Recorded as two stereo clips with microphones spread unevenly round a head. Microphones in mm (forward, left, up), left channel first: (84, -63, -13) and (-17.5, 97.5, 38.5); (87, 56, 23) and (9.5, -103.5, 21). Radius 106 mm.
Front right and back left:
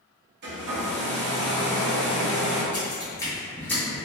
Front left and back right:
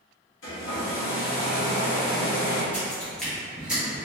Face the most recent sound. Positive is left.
turn(degrees=180)